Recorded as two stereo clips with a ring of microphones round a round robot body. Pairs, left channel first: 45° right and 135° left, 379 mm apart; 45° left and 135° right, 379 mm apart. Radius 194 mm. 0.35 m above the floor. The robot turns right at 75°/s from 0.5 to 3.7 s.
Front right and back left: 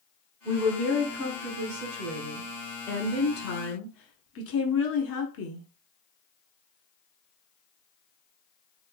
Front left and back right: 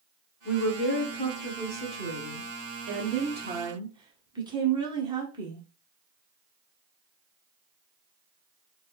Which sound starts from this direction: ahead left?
A woman speaking, at 0.5 s.